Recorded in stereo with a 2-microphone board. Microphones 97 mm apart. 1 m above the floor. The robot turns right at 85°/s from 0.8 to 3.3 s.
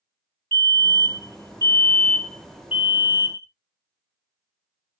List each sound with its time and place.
0.5 s a fire alarm: 20° left (ahead or behind), 1.5 m; by 3.5 s 30° right (ahead or behind), 1.5 m